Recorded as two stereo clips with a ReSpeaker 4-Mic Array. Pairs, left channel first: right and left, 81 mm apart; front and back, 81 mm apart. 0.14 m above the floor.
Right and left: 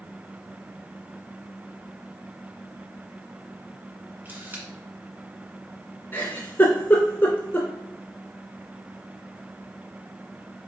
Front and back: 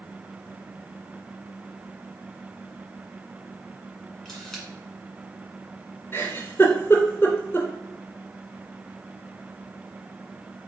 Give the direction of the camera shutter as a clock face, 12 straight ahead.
9 o'clock.